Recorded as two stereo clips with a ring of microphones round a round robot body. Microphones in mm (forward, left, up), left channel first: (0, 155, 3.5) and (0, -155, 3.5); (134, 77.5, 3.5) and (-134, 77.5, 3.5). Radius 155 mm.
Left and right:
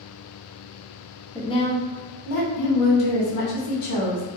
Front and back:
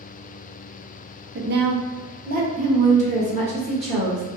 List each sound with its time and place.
1.4 s a woman speaking: 170° left, 0.5 m; by 4.2 s 110° left, 1.7 m